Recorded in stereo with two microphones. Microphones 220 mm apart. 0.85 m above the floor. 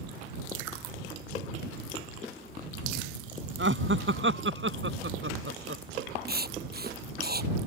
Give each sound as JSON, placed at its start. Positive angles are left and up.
{"t": 3.6, "sound": "laughter", "side_deg": -60}
{"t": 6.3, "sound": "writing", "side_deg": -45}